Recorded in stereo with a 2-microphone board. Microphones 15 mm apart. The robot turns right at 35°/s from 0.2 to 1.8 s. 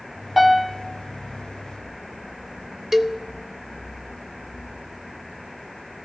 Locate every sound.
0.4 s a piano: 15° right (ahead or behind), 1.6 m; by 0.8 s 10° right (ahead or behind), 1.6 m
2.9 s a cowbell: 25° right (ahead or behind), 0.7 m